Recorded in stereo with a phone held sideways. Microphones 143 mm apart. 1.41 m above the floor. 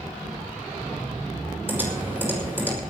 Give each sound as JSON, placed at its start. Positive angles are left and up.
{"t": 1.7, "sound": "typing on a keyboard", "side_deg": -15, "distance_m": 6.0}